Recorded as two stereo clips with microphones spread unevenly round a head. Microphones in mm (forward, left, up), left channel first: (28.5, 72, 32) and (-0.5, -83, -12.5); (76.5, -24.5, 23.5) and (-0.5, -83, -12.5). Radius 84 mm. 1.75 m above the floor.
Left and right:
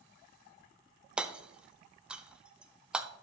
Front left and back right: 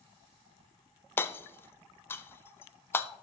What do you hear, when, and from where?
1.2 s hammering: 5° right, 0.6 m